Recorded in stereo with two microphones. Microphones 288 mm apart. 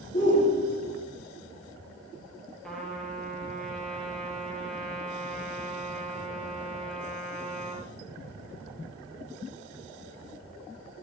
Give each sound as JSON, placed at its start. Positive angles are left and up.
{"t": 0.1, "sound": "a shout", "side_deg": 25, "distance_m": 4.0}
{"t": 2.6, "sound": "a trumpet", "side_deg": 0, "distance_m": 4.5}